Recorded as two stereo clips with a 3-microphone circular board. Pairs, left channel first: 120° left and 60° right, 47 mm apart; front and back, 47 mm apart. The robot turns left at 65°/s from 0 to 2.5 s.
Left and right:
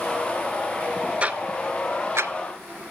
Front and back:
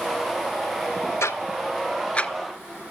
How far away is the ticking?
About 0.5 m.